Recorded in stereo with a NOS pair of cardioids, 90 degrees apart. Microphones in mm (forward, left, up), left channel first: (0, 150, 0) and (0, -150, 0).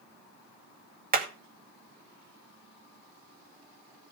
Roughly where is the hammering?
Ahead right.